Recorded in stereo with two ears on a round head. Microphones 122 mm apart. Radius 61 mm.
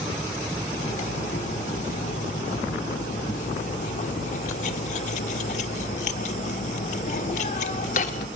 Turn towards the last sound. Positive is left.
turn(degrees=55)  # may be behind; listen again after turning